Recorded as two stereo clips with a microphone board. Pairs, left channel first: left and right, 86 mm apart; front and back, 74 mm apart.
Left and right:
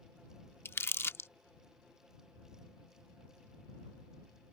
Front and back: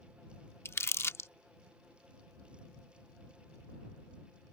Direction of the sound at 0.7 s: 40° left.